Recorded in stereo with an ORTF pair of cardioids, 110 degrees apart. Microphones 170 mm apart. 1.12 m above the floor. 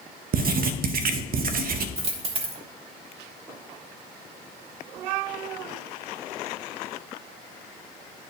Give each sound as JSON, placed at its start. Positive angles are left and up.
{"t": 0.3, "sound": "writing", "azimuth_deg": -60, "distance_m": 0.7}
{"t": 2.0, "sound": "a dropped coin", "azimuth_deg": -40, "distance_m": 1.3}